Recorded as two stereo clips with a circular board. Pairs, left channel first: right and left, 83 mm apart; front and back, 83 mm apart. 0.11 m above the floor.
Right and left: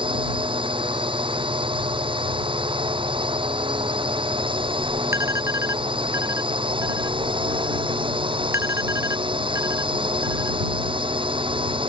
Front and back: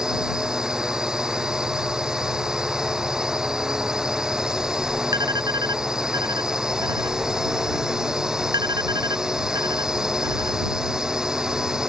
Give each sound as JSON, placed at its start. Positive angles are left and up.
{"t": 0.0, "sound": "a drone", "azimuth_deg": 100}
{"t": 5.1, "sound": "an alarm", "azimuth_deg": 145}